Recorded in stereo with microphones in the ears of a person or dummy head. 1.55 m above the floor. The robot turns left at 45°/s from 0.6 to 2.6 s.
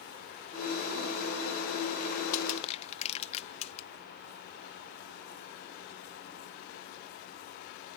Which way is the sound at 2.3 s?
50° left (ahead or behind).